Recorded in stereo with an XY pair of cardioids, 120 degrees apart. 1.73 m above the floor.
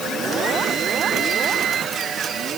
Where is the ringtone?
I don't hear a ringtone.